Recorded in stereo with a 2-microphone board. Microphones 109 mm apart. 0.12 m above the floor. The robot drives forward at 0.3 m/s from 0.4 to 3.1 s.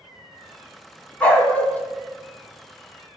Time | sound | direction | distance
1.2 | a dog barking | 10° left (ahead or behind) | 1.5 m